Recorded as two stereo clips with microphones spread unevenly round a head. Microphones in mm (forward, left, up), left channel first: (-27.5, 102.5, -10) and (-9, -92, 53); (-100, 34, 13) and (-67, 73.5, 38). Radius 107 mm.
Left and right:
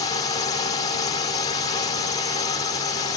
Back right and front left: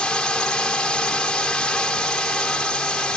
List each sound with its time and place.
0.0 s a drone: 160° left